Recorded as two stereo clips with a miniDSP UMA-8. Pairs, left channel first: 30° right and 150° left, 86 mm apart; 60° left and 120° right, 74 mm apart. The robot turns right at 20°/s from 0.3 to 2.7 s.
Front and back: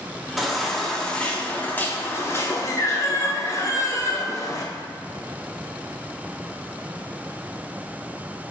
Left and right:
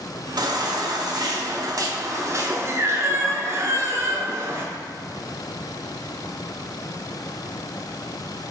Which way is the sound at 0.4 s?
120° right.